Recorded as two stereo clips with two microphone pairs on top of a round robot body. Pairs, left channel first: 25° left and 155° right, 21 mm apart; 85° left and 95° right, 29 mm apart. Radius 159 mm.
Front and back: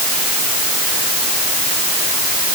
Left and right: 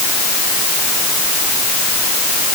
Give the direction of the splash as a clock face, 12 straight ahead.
No splash in this recording.